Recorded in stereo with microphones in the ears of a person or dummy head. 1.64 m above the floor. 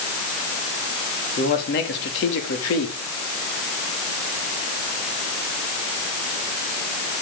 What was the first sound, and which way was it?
A man speaking, 45° left (ahead or behind).